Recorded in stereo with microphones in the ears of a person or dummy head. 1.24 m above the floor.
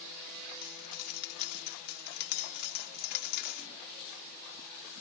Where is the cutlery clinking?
55° left (ahead or behind).